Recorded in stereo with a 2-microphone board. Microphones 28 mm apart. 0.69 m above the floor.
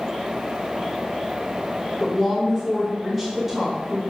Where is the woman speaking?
5° right (ahead or behind), 0.7 m.